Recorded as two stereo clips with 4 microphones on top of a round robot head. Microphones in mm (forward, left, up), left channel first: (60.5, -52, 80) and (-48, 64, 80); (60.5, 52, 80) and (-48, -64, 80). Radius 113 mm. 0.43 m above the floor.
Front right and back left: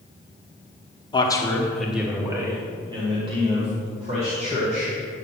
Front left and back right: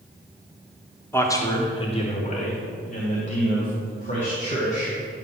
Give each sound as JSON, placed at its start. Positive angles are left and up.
{"t": 1.1, "sound": "a man speaking", "azimuth_deg": -20, "distance_m": 1.2}